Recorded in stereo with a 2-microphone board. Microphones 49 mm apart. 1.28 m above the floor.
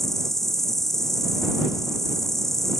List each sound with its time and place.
0.0 s an insect: 5° left (ahead or behind)